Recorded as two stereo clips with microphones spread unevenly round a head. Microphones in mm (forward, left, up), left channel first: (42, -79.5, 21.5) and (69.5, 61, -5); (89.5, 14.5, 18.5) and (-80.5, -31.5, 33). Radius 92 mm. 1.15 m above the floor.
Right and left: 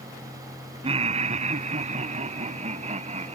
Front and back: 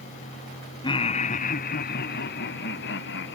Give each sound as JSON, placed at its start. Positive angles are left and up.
{"t": 0.8, "sound": "laughter", "azimuth_deg": 70}